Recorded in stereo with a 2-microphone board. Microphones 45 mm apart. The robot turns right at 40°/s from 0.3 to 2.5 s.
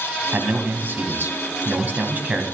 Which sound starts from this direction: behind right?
A man speaking, at 0.3 s.